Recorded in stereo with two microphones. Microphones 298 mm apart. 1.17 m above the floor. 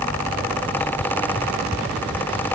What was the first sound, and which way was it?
Only background noise.